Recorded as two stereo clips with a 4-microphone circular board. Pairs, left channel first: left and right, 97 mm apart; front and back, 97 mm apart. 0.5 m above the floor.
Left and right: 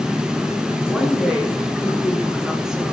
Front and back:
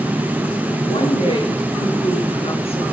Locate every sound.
0.8 s a woman speaking: 5° right, 8 m